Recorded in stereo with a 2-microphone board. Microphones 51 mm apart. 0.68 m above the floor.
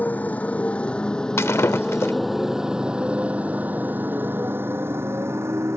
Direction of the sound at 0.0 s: 30° left (ahead or behind).